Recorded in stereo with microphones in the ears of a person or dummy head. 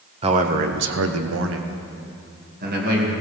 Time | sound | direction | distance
0.2 | a man speaking | 25° right (ahead or behind) | 1.0 m